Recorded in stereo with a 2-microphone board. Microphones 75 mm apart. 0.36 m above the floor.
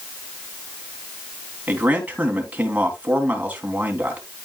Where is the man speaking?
20° right (ahead or behind), 3 m.